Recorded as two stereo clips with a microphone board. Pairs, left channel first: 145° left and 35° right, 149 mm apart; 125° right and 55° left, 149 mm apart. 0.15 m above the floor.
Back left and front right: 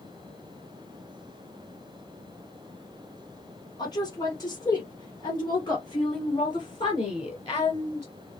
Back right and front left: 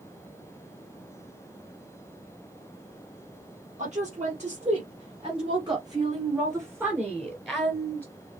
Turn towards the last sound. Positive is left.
turn(degrees=170)